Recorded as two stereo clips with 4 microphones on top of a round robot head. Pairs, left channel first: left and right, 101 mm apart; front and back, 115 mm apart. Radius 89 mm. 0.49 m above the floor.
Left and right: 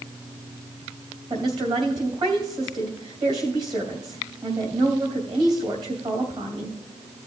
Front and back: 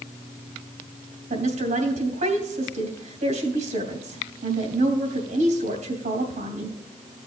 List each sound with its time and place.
1.3 s a woman speaking: 145° right, 2.5 m